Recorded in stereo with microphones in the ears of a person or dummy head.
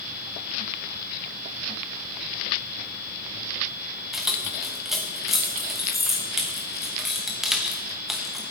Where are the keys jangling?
Centre (ahead or behind), 1.0 m.